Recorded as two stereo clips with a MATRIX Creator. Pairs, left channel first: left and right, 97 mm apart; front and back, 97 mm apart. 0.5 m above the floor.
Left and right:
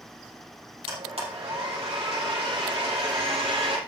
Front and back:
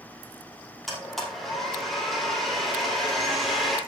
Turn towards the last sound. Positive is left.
turn(degrees=-90)